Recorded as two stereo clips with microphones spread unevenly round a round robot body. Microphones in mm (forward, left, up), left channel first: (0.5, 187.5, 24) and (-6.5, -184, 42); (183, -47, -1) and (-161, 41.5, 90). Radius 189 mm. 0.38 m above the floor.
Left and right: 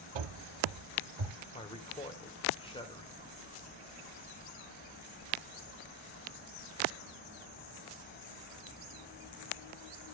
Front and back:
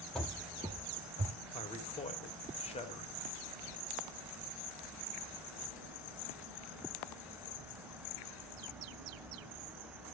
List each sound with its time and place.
0.1 s running footsteps: 110° right, 0.9 m; by 1.4 s 135° right, 1.7 m
1.5 s a man speaking: 25° left, 1.3 m